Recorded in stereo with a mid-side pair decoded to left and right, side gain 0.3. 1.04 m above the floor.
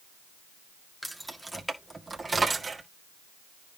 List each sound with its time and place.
1.0 s keys jangling: 5° right, 1.7 m; by 2.8 s 50° right, 2 m